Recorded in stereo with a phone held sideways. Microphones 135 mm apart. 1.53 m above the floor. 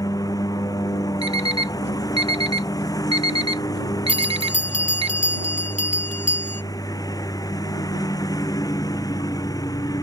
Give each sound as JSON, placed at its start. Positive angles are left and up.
{"t": 0.0, "sound": "a lawn mower", "side_deg": 25}
{"t": 1.2, "sound": "an alarm clock", "side_deg": -45}
{"t": 4.1, "sound": "a bell", "side_deg": 65}